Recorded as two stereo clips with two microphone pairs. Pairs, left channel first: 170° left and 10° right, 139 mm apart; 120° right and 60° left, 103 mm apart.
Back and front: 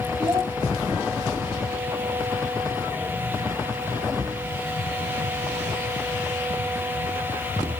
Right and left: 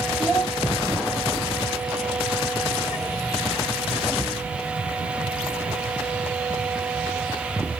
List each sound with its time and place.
0.2 s a child speaking: 35° right, 2.5 m